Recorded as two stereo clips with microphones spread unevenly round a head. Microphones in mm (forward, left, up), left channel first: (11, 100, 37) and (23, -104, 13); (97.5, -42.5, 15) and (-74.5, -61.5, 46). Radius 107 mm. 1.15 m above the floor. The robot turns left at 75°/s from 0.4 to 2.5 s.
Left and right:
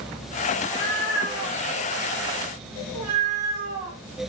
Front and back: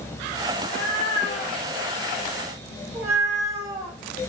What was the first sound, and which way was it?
A cat meowing, 45° left.